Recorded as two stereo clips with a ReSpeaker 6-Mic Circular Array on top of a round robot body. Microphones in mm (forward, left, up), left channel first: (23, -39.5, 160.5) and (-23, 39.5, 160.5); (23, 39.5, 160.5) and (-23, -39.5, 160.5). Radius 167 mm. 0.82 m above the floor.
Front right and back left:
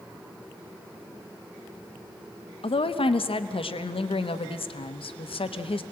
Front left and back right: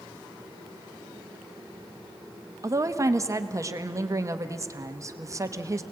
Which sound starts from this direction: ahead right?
A woman speaking, at 2.6 s.